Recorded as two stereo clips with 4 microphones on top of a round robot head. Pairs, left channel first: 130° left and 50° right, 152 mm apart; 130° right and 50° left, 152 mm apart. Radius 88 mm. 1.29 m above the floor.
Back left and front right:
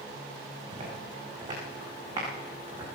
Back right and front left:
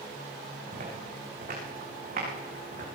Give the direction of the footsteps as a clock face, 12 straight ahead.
12 o'clock.